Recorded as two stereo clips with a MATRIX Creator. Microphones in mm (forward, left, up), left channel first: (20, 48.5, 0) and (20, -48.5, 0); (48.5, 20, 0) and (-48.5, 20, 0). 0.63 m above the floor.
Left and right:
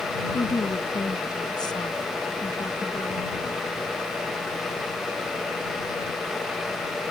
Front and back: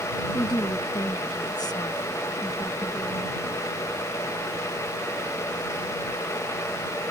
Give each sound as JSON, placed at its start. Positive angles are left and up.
{"t": 0.3, "sound": "a woman speaking", "azimuth_deg": 45}